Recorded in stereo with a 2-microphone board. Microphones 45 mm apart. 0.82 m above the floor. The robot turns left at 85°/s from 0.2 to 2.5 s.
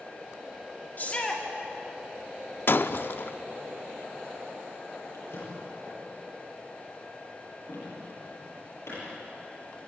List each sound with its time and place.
1.0 s a shout: 45° left, 2 m; by 1.4 s 5° left, 2 m
2.7 s breaking glass: 50° left (ahead or behind), 0.6 m
5.1 s a drawer: 75° left (ahead or behind), 9.5 m